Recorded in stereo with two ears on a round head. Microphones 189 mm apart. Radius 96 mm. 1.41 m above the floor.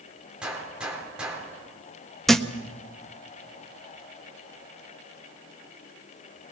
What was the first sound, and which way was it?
A gunshot, 5° right (ahead or behind).